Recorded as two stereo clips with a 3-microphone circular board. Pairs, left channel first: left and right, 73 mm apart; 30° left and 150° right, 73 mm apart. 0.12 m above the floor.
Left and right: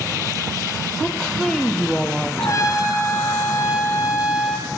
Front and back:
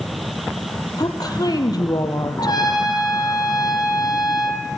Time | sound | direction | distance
1.0 | a woman speaking | 10° left | 3.5 m
2.4 | a trumpet | 50° left | 4 m